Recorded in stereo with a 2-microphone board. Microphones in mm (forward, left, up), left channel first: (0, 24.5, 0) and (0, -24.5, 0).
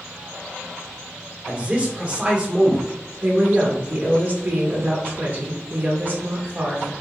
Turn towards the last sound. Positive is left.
turn(degrees=-40)  # may be behind; listen again after turning